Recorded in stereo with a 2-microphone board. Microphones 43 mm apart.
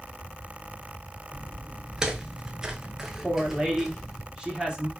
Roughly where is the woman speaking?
Right.